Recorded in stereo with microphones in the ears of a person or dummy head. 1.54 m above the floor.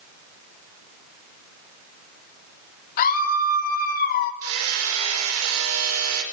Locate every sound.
3.0 s a scream: 50° left (ahead or behind), 3 m
4.4 s hammering: 85° right, 4.5 m